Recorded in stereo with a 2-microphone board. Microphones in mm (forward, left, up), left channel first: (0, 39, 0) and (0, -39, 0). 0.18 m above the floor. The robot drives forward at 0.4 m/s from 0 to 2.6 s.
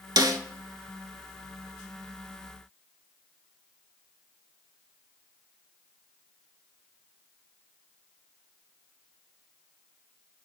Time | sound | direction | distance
0.2 | a snare drum | 60° right (ahead or behind) | 0.5 m